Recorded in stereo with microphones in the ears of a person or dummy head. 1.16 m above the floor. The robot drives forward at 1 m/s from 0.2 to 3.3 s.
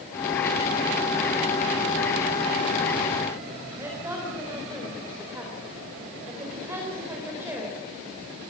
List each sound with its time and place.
3.8 s a woman speaking: 15° right (ahead or behind), 4 m